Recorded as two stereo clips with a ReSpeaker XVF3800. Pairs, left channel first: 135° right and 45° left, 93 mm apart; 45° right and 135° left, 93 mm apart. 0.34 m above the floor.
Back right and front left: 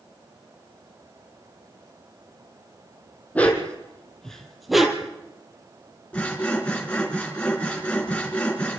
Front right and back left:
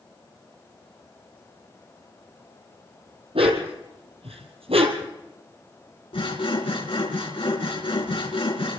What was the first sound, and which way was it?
A dog barking, 150° left.